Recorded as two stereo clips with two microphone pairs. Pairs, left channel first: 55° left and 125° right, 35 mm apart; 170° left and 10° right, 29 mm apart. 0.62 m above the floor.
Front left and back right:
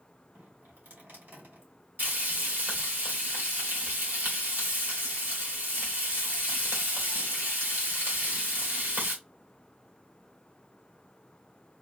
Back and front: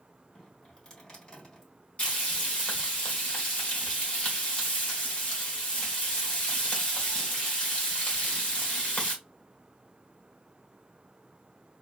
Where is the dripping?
125° right, 2.5 m.